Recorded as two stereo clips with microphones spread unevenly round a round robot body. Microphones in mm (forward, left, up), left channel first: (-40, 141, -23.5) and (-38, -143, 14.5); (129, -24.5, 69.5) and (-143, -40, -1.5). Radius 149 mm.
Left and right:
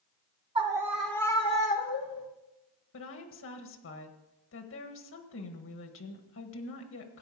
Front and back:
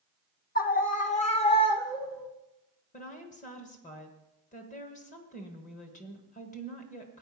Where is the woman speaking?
70° left, 1.3 m.